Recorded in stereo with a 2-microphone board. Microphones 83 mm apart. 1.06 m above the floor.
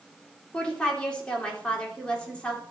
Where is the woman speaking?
10° left (ahead or behind), 4 m.